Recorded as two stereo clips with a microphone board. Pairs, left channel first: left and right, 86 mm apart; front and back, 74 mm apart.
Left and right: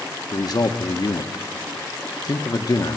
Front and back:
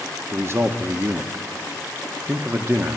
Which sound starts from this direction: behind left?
A man speaking, at 0.3 s.